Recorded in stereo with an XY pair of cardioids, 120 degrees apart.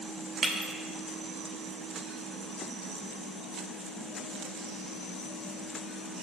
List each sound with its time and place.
0.4 s breaking glass: 45° right, 2.0 m